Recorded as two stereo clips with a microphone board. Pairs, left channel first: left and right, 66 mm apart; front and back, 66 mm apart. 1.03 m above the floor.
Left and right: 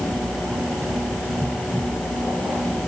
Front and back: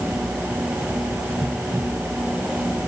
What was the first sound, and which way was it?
Only background noise.